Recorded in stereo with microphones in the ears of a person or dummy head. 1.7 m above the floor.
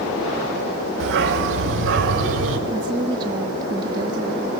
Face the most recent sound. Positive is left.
turn(degrees=-25)  # may be behind; listen again after turning